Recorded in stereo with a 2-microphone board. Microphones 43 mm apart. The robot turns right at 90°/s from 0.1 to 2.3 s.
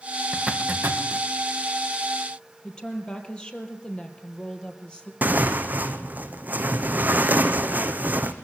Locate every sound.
0.3 s a zipper: 20° right (ahead or behind), 2.5 m; by 1.3 s 75° right (ahead or behind), 2.5 m
2.6 s a woman speaking: 25° left (ahead or behind), 3 m
5.2 s tearing paper: 45° right (ahead or behind), 1.6 m